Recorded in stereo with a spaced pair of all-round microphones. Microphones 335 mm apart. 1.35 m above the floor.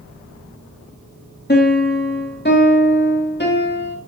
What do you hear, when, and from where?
1.5 s a piano: 30° left (ahead or behind), 3 m